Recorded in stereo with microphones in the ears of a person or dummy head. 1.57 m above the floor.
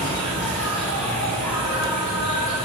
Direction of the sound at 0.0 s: Centre (ahead or behind).